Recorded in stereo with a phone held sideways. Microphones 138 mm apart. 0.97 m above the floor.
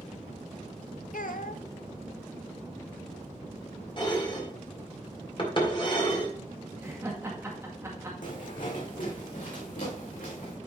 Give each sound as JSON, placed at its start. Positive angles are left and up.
{"t": 1.1, "sound": "a child speaking", "side_deg": 80, "distance_m": 0.7}
{"t": 4.0, "sound": "dishes clattering", "side_deg": 40, "distance_m": 1.9}
{"t": 6.8, "sound": "laughter", "side_deg": -20, "distance_m": 1.9}
{"t": 8.2, "sound": "footsteps", "side_deg": 70, "distance_m": 3.0}